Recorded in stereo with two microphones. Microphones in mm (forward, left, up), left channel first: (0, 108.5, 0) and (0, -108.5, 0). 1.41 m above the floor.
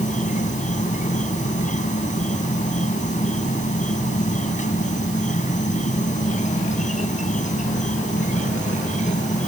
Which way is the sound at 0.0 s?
35° left (ahead or behind).